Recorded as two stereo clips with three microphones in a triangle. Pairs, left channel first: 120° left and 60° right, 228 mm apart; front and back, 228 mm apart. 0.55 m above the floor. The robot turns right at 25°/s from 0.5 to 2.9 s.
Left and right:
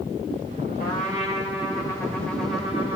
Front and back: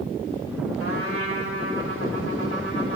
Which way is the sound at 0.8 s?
170° left.